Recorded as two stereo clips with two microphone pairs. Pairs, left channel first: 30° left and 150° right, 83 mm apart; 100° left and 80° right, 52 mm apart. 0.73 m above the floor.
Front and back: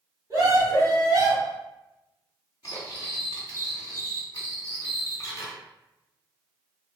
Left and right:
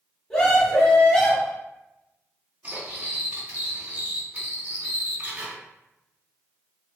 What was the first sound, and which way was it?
A scream, 170° left.